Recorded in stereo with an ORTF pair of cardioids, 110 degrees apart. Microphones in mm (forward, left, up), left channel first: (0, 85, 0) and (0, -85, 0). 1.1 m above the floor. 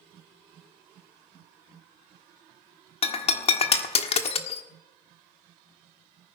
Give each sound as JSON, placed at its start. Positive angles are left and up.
{"t": 3.0, "sound": "breaking glass", "azimuth_deg": 35, "distance_m": 1.4}